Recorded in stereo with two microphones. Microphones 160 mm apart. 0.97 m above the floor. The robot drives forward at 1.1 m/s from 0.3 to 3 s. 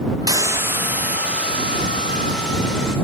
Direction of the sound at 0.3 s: 20° right (ahead or behind).